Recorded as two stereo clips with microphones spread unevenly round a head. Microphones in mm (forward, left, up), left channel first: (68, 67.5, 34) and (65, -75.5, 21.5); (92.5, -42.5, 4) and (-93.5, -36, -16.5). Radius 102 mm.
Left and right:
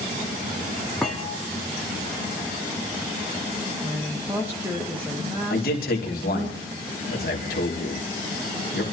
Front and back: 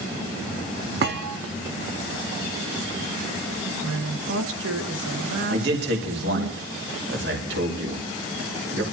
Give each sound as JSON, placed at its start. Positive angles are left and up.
{"t": 1.0, "sound": "a thud", "azimuth_deg": 170, "distance_m": 1.4}
{"t": 3.8, "sound": "a woman speaking", "azimuth_deg": -175, "distance_m": 1.8}
{"t": 5.5, "sound": "a man speaking", "azimuth_deg": 135, "distance_m": 2.5}